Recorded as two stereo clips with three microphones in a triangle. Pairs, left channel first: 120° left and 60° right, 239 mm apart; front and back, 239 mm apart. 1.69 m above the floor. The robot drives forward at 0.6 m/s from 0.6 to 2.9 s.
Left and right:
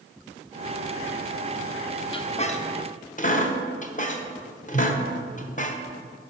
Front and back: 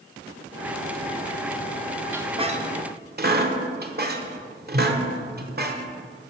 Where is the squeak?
115° left, 0.6 m; by 5.8 s 160° left, 0.8 m.